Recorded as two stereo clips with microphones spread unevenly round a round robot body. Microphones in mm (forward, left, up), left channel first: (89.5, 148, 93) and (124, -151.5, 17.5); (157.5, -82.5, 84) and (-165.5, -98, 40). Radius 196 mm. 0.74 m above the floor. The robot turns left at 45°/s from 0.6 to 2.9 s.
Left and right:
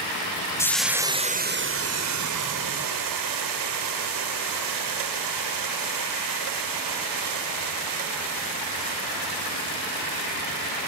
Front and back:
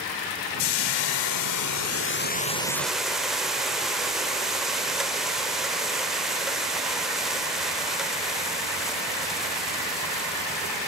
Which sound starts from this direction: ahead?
Frying, at 0.6 s.